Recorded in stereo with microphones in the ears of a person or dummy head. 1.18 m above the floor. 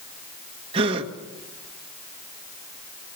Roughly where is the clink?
No clink in this recording.